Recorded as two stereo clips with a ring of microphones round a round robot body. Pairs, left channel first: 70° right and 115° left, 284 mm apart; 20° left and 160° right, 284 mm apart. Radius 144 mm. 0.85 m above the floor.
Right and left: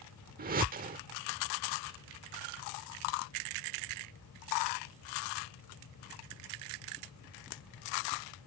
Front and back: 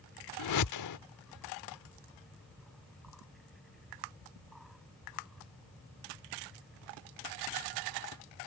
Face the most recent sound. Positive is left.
turn(degrees=50)